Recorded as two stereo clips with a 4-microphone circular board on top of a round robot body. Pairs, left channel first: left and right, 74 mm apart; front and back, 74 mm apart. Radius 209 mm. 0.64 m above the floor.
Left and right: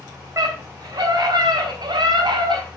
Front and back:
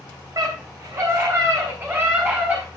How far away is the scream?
About 3.5 m.